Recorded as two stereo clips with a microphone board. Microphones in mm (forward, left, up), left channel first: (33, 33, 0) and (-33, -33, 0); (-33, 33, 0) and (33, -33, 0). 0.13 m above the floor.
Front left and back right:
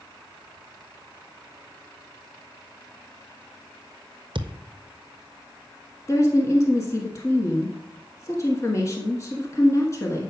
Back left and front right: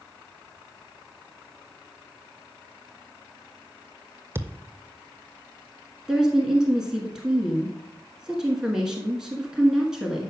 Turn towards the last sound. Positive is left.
turn(degrees=35)